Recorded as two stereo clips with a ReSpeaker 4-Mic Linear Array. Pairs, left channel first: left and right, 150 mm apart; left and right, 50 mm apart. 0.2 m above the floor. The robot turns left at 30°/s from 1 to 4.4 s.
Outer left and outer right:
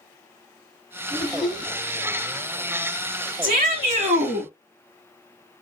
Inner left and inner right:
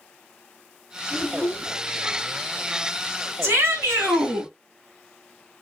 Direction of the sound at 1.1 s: 35° right (ahead or behind).